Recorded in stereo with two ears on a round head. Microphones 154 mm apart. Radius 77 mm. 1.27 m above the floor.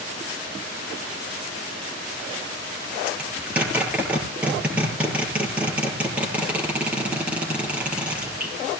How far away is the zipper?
About 9.5 m.